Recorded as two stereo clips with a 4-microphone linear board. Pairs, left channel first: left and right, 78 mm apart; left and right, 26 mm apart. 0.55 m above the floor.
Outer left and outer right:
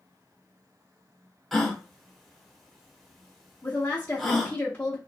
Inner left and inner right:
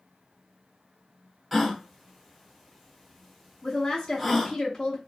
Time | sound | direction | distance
1.5 | a gasp | centre (ahead or behind) | 0.7 m
3.6 | a woman speaking | 25° left (ahead or behind) | 0.7 m